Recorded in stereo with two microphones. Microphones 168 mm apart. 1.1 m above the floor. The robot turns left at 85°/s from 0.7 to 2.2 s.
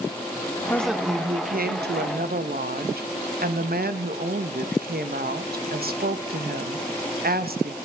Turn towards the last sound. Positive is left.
turn(degrees=-115)